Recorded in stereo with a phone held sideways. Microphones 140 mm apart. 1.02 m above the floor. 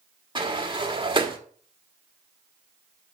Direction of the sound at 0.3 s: 35° right (ahead or behind).